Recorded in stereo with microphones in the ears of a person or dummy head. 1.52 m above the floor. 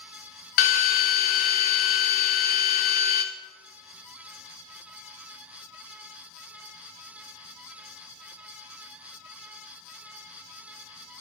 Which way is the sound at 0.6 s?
40° left (ahead or behind).